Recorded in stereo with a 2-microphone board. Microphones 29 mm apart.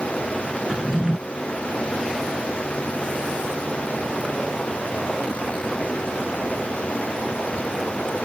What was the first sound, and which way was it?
A drawer, 20° right (ahead or behind).